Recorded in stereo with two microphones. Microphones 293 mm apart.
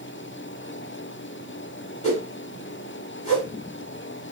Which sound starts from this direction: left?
A whoosh, at 2.0 s.